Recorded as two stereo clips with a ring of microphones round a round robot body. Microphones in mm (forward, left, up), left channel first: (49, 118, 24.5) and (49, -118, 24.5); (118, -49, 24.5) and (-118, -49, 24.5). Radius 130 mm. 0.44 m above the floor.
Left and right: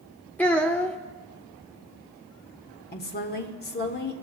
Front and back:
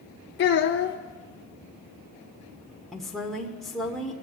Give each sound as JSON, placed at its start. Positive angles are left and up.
{"t": 0.4, "sound": "a child speaking", "azimuth_deg": 5, "distance_m": 0.6}
{"t": 2.9, "sound": "a woman speaking", "azimuth_deg": 90, "distance_m": 1.2}